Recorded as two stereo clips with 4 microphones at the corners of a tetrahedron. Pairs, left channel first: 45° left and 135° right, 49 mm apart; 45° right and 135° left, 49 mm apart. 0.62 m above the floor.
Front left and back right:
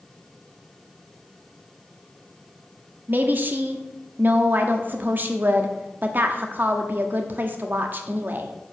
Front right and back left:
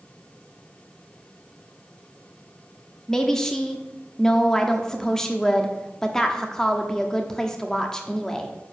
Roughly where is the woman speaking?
Behind right.